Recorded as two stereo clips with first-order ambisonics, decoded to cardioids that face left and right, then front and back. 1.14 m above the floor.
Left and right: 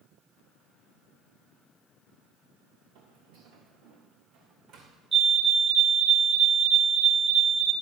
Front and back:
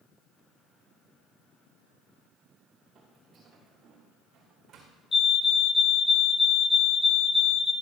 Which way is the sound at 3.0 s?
110° right.